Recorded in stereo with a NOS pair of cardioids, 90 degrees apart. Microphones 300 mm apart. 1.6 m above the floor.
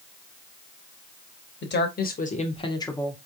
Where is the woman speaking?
40° left, 1.5 m; by 3.2 s 5° left, 1.2 m.